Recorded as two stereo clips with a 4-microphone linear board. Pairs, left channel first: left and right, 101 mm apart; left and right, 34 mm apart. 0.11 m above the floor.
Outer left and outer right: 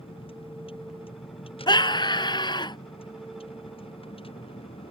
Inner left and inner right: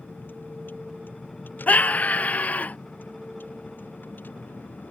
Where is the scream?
50° left (ahead or behind).